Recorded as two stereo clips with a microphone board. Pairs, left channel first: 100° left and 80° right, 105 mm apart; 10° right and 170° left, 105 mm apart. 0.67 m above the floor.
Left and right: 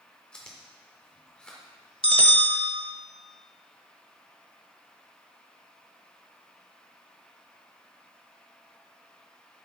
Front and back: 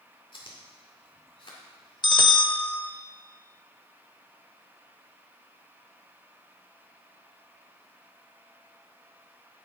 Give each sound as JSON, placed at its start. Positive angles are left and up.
{"t": 0.3, "sound": "chewing", "azimuth_deg": 20, "distance_m": 1.8}
{"t": 2.0, "sound": "a bell", "azimuth_deg": -55, "distance_m": 0.8}